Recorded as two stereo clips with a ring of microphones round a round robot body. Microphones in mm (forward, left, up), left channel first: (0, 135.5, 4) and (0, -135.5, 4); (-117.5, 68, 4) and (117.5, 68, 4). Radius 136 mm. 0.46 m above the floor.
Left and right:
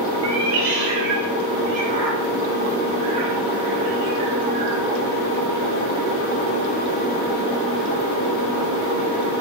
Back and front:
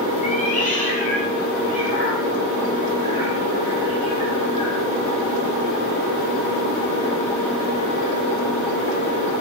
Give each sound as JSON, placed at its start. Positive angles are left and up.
{"t": 0.2, "sound": "a cat meowing", "azimuth_deg": -115, "distance_m": 1.5}